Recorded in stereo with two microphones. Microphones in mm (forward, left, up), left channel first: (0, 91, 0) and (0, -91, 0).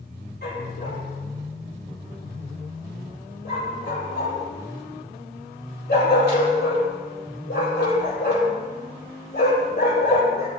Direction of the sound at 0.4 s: 70° left (ahead or behind).